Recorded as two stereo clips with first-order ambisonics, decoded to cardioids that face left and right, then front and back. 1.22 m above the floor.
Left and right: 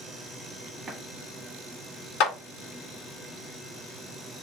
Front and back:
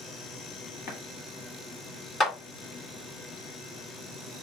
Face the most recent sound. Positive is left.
turn(degrees=70)